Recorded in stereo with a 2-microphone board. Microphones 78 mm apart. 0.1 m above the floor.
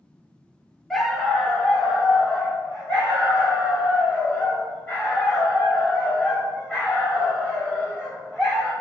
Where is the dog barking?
5° left (ahead or behind), 0.7 m; by 8.7 s 15° left (ahead or behind), 6 m.